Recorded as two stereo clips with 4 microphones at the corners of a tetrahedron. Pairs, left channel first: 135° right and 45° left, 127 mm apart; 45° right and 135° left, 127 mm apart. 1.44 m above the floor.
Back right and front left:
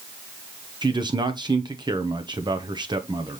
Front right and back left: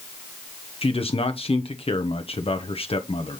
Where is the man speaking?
10° right, 0.8 m.